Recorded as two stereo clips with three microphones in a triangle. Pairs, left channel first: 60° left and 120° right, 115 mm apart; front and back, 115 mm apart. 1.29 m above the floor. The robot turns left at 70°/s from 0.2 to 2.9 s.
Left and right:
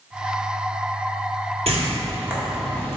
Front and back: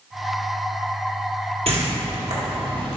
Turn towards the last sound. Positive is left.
turn(degrees=125)